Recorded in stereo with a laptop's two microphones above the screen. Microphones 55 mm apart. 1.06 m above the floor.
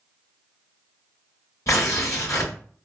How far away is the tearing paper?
About 2 m.